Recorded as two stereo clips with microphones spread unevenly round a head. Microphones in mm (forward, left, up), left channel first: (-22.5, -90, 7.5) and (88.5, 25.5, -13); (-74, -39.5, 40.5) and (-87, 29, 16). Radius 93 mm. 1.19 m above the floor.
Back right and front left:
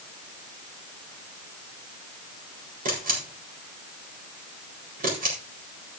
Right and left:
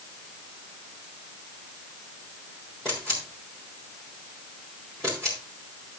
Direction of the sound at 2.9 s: 5° left.